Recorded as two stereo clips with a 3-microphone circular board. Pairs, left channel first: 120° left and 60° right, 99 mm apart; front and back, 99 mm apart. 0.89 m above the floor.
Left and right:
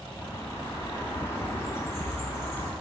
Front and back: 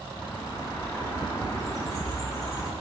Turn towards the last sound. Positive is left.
turn(degrees=55)